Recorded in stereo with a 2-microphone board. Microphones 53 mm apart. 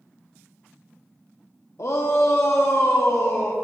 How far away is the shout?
About 0.5 m.